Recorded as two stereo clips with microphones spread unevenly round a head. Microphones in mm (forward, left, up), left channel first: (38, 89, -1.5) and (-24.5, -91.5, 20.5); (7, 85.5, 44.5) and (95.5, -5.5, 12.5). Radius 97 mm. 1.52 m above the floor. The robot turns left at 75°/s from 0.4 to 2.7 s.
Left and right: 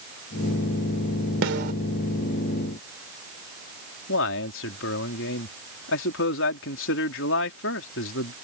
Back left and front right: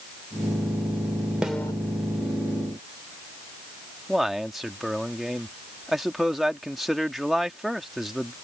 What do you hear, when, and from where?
1.4 s a snare drum: 135° right; by 1.7 s 160° right
4.1 s a man speaking: 45° left